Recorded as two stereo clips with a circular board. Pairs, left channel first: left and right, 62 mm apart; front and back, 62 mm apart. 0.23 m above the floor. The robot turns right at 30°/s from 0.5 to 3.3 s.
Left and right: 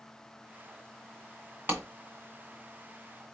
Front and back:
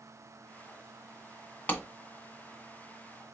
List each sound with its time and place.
1.7 s a clap: 55° right, 2 m; by 1.8 s 50° right, 2 m